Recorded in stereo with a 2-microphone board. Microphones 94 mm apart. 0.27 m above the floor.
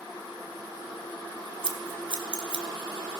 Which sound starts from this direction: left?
Scissors, at 1.6 s.